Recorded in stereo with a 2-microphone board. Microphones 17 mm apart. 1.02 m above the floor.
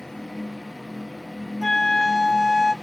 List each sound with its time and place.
1.6 s a flute: 35° left (ahead or behind), 0.9 m